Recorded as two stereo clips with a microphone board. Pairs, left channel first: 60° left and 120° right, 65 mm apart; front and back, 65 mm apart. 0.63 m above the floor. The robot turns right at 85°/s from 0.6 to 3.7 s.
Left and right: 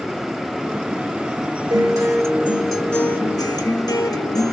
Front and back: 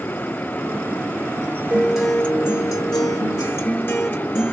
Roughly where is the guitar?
Behind right.